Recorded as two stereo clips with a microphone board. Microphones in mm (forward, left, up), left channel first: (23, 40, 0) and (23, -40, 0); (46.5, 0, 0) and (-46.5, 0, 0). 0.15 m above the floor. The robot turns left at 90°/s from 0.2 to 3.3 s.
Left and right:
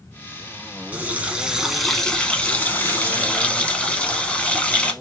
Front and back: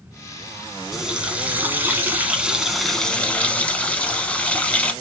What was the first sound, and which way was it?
A running tap, 100° right.